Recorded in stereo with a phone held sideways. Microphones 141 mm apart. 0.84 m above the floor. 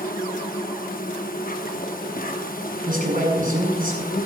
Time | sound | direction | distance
0.0 | an insect | 85° left | 0.8 m
2.9 | a man speaking | 80° right | 6.5 m